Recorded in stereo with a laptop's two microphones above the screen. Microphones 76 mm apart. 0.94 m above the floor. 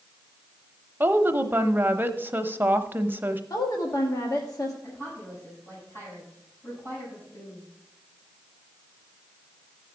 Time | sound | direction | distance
1.0 | a woman speaking | 30° right (ahead or behind) | 0.7 m
3.5 | a woman speaking | 55° left (ahead or behind) | 1.3 m
4.8 | a woman speaking | 30° left (ahead or behind) | 7.5 m